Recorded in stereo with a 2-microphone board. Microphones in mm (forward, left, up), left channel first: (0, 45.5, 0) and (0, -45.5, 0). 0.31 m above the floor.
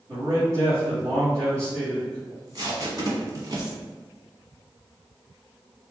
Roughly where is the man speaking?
Right.